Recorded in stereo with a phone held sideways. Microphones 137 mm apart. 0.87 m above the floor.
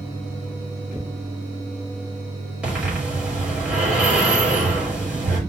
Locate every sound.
2.6 s breathing: 10° right (ahead or behind), 5.5 m